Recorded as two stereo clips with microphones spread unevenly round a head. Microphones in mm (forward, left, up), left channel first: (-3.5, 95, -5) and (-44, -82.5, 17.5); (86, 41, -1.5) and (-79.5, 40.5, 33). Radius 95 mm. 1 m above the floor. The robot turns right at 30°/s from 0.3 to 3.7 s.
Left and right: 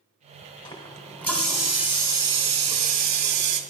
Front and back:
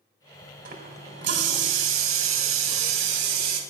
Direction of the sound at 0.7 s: 140° left.